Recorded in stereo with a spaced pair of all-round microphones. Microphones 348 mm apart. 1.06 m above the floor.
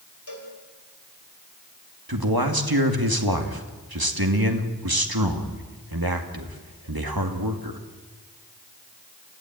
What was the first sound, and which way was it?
A cowbell, 70° left (ahead or behind).